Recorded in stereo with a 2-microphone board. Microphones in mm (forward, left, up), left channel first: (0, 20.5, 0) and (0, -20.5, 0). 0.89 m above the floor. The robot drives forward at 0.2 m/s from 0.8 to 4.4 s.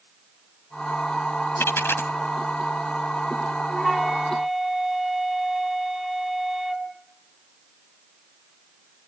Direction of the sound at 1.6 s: 75° left (ahead or behind).